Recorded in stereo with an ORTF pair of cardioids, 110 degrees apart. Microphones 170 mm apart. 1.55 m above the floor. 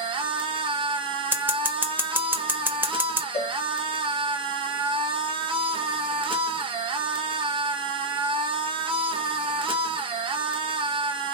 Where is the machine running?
30° right, 0.8 m.